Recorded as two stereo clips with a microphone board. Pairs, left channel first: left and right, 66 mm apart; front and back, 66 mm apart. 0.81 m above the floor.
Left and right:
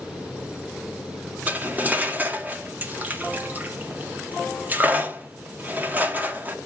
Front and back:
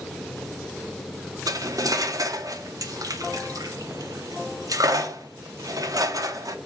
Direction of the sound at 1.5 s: 155° right.